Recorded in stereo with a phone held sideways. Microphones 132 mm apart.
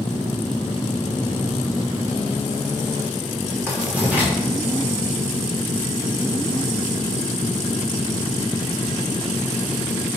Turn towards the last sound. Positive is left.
turn(degrees=-10)  # may be behind; listen again after turning